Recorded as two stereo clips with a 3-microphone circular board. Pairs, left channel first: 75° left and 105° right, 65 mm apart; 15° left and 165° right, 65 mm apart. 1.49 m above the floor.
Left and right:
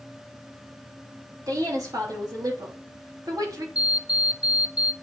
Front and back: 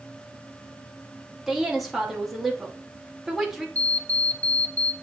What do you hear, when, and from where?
1.5 s a woman speaking: 80° right, 3 m
3.8 s an alarm clock: 45° right, 0.7 m